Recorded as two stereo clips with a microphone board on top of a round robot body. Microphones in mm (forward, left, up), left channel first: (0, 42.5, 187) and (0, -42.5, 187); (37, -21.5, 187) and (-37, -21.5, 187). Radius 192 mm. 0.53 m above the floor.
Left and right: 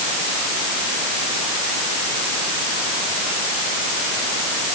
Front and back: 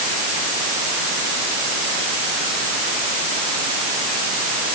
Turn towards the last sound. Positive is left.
No sound to turn to.